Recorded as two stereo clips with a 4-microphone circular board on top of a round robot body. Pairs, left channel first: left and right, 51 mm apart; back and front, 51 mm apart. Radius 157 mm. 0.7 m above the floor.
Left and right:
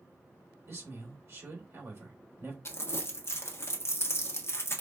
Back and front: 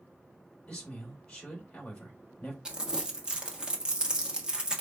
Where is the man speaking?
110° right, 3 m.